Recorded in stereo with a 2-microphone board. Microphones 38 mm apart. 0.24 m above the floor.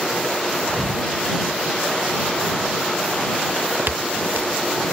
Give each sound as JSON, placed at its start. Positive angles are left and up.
{"t": 0.7, "sound": "a thud", "side_deg": -20}
{"t": 3.5, "sound": "footsteps", "side_deg": -60}